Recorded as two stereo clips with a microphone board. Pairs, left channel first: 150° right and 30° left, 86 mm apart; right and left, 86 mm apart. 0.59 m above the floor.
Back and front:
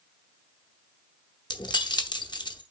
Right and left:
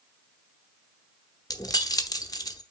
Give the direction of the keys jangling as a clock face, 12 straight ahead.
4 o'clock.